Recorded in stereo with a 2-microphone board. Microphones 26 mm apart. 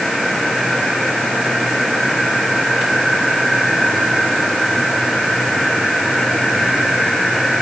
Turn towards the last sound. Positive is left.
No sound to turn to.